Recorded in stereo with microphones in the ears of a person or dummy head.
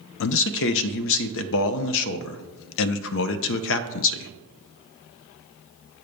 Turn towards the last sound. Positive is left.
turn(degrees=70)  # may be behind; listen again after turning